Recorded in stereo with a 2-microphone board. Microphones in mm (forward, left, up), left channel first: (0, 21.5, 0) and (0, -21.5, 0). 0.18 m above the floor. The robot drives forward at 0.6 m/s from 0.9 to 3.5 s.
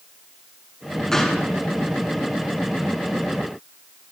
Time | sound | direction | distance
1.1 | a gunshot | 10° left (ahead or behind) | 1.5 m